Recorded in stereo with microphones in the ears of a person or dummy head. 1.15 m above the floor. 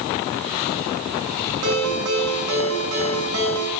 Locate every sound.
1.6 s a ringtone: 75° right (ahead or behind), 6 m